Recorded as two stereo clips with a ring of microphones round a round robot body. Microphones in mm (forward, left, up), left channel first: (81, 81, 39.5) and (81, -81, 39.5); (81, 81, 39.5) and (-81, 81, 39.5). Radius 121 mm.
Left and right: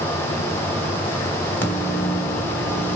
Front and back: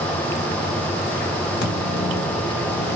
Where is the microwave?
10° left, 2.5 m.